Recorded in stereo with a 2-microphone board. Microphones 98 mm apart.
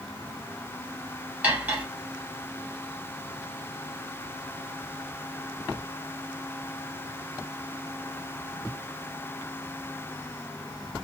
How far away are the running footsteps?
No running footsteps in this recording.